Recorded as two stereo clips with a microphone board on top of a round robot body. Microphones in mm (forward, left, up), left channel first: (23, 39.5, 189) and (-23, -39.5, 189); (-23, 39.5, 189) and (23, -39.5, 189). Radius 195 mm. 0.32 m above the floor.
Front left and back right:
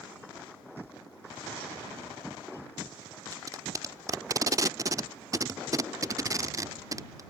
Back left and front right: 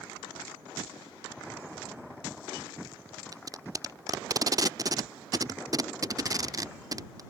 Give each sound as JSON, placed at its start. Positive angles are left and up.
{"t": 3.3, "sound": "tape being pulled", "azimuth_deg": -85}